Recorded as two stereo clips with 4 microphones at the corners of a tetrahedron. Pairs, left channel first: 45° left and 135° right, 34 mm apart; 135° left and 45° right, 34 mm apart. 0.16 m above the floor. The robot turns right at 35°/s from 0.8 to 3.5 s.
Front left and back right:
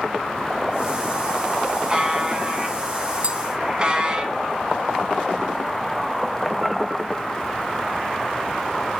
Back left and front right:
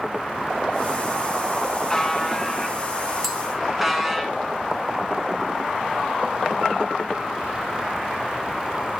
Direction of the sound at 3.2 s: 125° right.